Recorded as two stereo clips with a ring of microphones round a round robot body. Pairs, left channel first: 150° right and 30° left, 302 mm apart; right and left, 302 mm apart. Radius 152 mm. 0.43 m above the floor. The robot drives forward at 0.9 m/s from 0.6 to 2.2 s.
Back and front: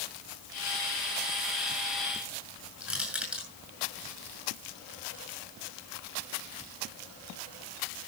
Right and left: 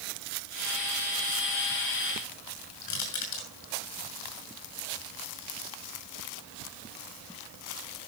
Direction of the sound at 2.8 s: 60° right.